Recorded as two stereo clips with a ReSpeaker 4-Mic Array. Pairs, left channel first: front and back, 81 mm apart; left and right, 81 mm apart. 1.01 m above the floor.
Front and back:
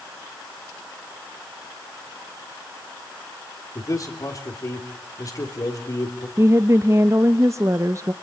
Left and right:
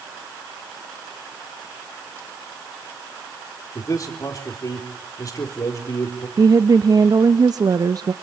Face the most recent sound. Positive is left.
turn(degrees=-125)